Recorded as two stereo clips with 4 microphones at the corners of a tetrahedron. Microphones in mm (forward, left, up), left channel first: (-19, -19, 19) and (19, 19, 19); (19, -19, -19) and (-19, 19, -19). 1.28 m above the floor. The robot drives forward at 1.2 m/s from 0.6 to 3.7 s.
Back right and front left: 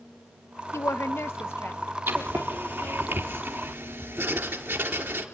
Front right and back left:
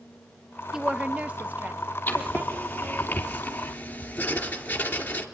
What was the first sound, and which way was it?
A woman speaking, 145° right.